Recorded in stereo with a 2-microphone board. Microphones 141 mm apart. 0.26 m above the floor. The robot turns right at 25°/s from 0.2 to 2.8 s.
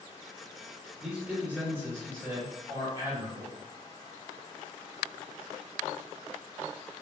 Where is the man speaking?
170° right, 1.0 m; by 3.5 s 125° right, 1.0 m.